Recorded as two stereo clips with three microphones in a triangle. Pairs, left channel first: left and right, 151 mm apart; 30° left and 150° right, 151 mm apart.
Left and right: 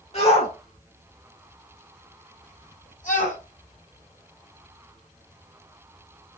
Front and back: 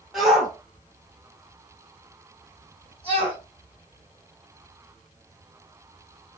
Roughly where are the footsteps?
I don't hear footsteps.